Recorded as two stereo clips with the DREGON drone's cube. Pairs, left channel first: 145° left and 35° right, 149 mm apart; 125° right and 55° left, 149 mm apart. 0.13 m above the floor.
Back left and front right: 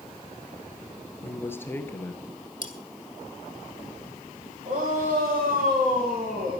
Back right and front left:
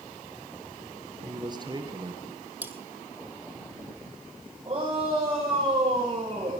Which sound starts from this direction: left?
A man speaking, at 1.2 s.